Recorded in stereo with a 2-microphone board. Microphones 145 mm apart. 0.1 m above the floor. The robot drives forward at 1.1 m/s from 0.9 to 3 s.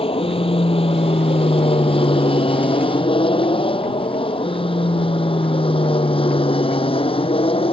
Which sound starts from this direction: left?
An aircraft, at 0.0 s.